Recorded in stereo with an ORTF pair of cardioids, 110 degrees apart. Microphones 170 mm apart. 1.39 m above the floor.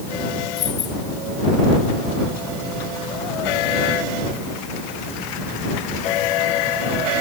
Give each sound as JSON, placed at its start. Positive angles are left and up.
{"t": 0.6, "sound": "keys jangling", "azimuth_deg": 45}